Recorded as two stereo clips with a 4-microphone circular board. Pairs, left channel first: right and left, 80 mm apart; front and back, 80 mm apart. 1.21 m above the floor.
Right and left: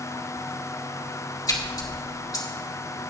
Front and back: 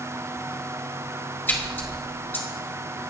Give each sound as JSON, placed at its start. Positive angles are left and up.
{"t": 1.5, "sound": "a splash", "azimuth_deg": -60, "distance_m": 1.7}